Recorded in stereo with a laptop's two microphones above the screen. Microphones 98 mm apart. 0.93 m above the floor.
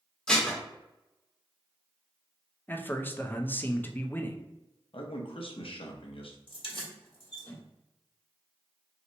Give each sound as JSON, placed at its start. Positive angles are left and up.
{"t": 0.3, "sound": "dishes clattering", "side_deg": 10, "distance_m": 0.9}
{"t": 2.7, "sound": "a man speaking", "side_deg": 20, "distance_m": 0.5}
{"t": 4.9, "sound": "a man speaking", "side_deg": 70, "distance_m": 0.8}
{"t": 6.5, "sound": "keys jangling", "side_deg": 60, "distance_m": 1.2}